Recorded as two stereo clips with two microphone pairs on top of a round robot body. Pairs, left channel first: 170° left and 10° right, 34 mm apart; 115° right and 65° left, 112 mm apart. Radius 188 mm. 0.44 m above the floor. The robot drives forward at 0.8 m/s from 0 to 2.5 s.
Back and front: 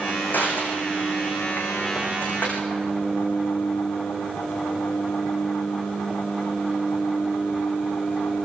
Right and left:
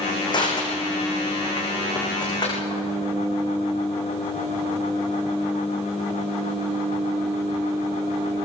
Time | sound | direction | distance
0.3 | crushing | 165° right | 6 m